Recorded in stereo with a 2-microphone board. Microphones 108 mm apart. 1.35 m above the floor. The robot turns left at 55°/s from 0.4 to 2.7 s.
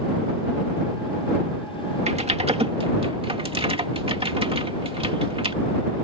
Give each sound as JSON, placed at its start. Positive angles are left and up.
{"t": 2.1, "sound": "typing on a keyboard", "side_deg": -80}